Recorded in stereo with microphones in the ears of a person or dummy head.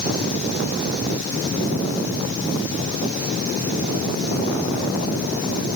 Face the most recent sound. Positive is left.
No sound to turn to.